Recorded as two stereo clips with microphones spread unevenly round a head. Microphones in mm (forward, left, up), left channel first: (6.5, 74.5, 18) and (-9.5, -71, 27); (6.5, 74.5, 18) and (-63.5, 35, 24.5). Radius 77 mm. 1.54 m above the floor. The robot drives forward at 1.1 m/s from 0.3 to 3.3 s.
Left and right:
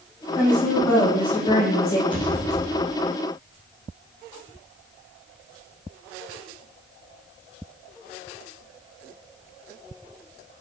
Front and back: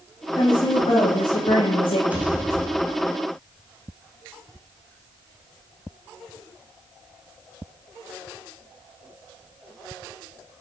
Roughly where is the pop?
Behind left.